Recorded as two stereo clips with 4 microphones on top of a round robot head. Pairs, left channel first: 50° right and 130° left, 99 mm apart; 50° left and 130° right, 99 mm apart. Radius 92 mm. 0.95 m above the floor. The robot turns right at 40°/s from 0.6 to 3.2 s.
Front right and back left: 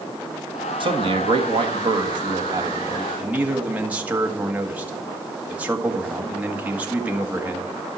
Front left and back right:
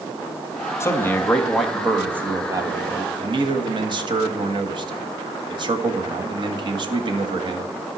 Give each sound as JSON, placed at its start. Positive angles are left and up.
{"t": 0.8, "sound": "a man speaking", "azimuth_deg": 105, "distance_m": 1.8}